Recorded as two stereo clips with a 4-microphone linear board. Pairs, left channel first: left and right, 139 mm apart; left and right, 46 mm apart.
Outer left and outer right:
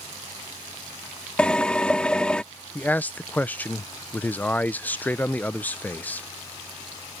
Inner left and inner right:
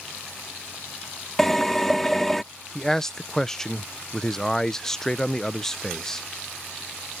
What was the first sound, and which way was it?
A drill, 5° left (ahead or behind).